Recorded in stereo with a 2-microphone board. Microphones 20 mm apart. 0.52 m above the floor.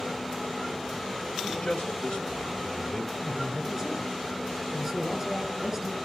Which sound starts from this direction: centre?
A man speaking, at 3.2 s.